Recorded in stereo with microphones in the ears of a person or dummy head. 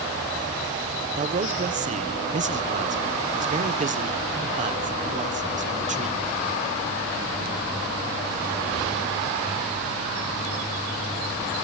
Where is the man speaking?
35° right (ahead or behind), 1.3 m.